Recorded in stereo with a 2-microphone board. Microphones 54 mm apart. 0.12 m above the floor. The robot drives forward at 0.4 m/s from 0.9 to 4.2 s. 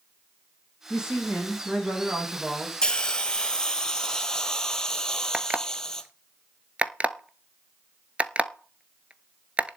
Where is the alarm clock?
25° right (ahead or behind), 0.7 m.